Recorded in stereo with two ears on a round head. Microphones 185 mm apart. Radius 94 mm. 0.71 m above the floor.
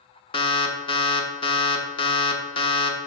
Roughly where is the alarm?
Left.